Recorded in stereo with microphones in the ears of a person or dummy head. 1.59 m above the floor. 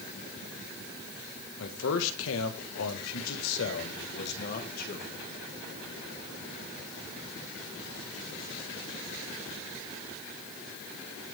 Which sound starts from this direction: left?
A man speaking, at 1.6 s.